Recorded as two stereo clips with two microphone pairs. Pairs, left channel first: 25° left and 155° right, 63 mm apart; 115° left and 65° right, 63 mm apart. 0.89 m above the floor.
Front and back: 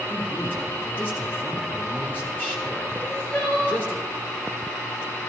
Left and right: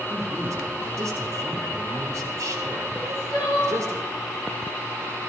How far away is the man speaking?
About 1.9 m.